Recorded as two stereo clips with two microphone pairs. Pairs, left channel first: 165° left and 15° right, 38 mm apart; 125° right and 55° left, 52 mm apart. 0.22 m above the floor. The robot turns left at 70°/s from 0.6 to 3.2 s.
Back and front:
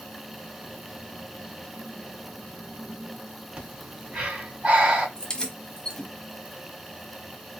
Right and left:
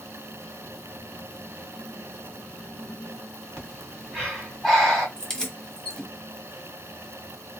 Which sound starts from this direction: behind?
Keys jangling, at 5.2 s.